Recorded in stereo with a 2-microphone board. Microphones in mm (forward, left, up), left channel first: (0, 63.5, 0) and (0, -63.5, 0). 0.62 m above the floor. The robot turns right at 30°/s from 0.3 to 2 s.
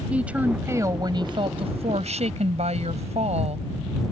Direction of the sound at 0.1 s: 170° right.